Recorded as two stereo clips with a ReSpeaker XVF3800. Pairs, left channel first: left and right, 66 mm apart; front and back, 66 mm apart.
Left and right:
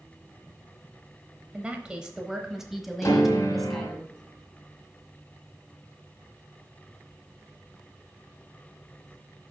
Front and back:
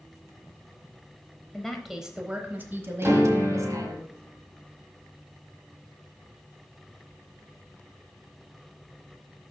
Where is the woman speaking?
60° right, 0.9 m; by 4.0 s 175° left, 1.5 m.